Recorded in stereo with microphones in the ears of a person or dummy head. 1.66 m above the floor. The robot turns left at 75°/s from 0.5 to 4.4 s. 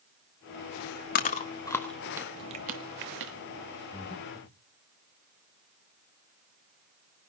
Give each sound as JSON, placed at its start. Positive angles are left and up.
{"t": 1.1, "sound": "chewing", "side_deg": 45, "distance_m": 1.5}
{"t": 3.9, "sound": "breathing", "azimuth_deg": 40, "distance_m": 3.5}